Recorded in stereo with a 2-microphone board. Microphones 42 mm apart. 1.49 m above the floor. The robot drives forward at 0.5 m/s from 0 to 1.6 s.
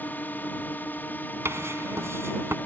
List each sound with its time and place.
0.0 s a drone: 45° left (ahead or behind)
1.4 s writing: 80° right